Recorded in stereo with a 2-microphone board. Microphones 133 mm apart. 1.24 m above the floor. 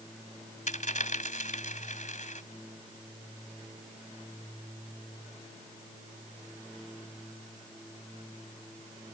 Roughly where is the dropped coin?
Left.